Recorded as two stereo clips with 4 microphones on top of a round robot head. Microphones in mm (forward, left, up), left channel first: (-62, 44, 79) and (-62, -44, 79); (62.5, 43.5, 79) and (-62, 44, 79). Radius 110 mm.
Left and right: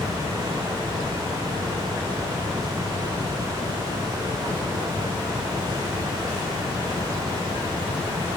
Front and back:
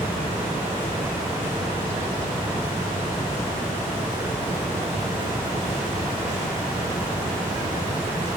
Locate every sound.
Only background noise.